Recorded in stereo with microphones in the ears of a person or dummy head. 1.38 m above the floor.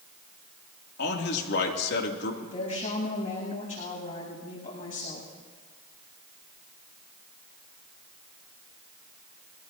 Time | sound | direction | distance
1.0 | a man speaking | 60° left (ahead or behind) | 2.5 m
2.4 | a woman speaking | 55° left (ahead or behind) | 8.5 m